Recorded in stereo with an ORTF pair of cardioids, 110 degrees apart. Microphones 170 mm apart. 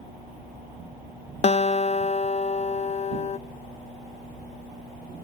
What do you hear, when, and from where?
1.4 s a guitar: 40° left, 0.5 m